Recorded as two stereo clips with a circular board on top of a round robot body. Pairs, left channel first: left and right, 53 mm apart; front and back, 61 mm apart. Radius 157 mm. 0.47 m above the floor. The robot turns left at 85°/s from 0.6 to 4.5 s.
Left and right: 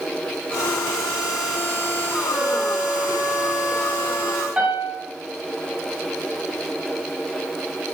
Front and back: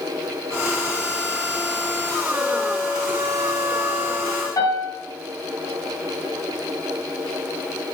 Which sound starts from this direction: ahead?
A piano, at 4.6 s.